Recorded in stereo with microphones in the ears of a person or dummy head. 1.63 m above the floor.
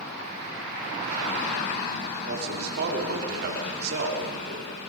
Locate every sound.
2.2 s a man speaking: 60° right (ahead or behind), 5 m